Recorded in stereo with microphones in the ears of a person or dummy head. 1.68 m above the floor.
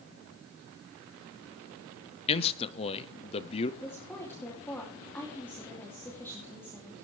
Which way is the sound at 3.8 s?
10° left (ahead or behind).